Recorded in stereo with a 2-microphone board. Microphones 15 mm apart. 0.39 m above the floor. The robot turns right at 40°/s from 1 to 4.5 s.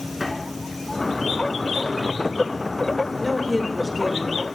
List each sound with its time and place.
0.2 s a drawer: centre (ahead or behind), 2.5 m; by 2.1 s 40° right (ahead or behind), 2.5 m
3.2 s a woman speaking: 15° left (ahead or behind), 0.9 m; by 4.4 s 5° right (ahead or behind), 0.9 m